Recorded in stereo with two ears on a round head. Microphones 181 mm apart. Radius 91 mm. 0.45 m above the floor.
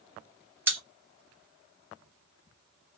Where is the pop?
10° right (ahead or behind), 1.6 m.